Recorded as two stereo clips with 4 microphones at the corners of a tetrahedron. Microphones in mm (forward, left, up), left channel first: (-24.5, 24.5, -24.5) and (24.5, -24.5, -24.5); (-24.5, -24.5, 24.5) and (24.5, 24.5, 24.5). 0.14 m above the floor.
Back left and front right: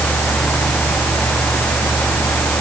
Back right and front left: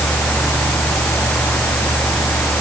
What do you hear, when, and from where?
Only background noise.